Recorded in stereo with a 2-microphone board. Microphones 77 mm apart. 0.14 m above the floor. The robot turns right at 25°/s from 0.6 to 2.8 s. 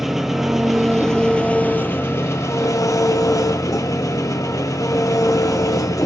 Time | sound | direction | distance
0.0 | an engine running | 5° right | 1.6 m